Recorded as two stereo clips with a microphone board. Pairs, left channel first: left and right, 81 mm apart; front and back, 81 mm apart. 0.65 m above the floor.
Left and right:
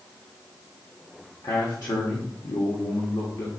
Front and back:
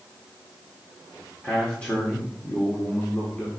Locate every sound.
1.4 s a man speaking: 70° left, 1.4 m